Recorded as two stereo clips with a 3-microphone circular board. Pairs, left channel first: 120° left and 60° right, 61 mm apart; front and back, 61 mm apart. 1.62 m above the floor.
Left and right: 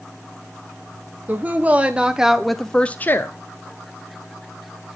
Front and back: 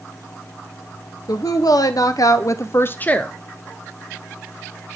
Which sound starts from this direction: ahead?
A woman speaking, at 1.3 s.